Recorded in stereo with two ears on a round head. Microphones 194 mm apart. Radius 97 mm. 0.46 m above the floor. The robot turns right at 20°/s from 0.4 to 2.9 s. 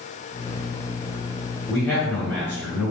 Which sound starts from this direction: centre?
A man speaking, at 1.7 s.